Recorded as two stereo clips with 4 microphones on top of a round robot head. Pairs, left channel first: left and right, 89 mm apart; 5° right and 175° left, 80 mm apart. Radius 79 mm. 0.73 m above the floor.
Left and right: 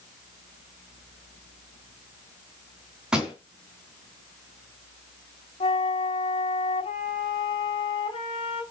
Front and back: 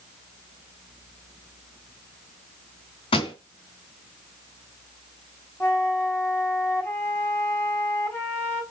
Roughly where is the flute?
Ahead left.